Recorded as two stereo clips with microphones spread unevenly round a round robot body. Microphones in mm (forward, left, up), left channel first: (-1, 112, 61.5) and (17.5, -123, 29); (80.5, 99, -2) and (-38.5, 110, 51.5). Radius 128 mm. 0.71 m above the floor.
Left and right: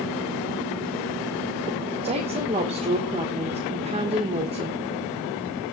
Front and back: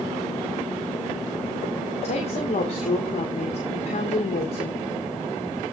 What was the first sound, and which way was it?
A woman speaking, 25° right.